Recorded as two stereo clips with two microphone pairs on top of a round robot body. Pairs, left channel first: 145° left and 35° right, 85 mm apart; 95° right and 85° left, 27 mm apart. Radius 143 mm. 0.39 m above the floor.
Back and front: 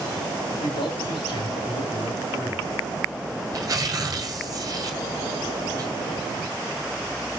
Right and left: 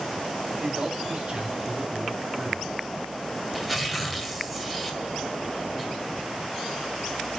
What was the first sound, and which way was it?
A man speaking, 125° left.